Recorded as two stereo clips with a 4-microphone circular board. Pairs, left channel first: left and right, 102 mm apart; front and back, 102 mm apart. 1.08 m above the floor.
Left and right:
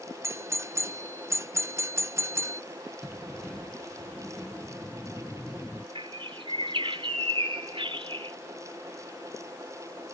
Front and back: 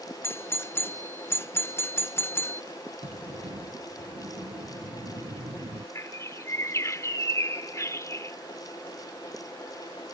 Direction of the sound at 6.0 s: 60° right.